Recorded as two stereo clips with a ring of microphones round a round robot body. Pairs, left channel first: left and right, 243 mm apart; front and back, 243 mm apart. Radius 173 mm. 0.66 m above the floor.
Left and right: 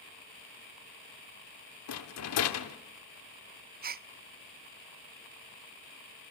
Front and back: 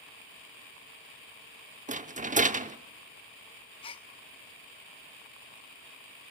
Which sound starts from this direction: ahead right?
A gasp, at 3.8 s.